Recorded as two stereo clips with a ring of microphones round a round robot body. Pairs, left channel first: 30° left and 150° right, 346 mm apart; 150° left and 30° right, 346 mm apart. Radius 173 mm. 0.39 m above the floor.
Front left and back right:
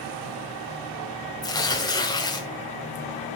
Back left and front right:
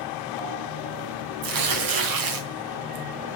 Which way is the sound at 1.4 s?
50° right.